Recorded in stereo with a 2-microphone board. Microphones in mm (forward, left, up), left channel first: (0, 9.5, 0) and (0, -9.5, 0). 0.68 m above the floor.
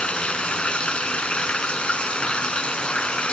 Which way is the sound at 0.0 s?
80° left.